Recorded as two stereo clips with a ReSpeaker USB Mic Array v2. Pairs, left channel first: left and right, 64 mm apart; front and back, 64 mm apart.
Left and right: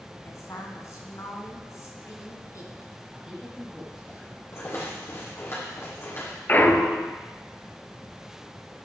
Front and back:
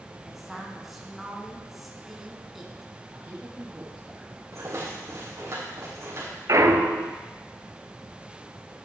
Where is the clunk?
150° left, 0.8 m.